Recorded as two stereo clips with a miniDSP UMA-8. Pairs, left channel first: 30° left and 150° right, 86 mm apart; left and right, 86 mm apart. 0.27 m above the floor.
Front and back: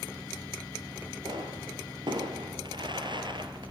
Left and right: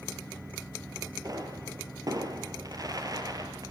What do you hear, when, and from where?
1.2 s a pop: 130° right, 3 m